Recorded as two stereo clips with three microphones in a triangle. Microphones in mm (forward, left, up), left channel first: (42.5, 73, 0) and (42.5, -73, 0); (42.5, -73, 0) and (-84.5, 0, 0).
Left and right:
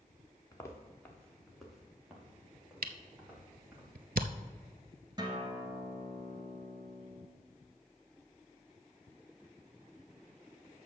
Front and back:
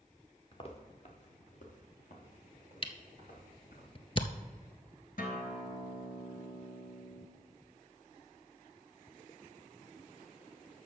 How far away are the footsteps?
About 1.6 m.